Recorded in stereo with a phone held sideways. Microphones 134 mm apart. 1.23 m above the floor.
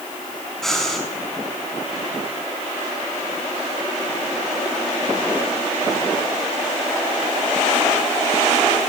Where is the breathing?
Centre (ahead or behind), 5 m.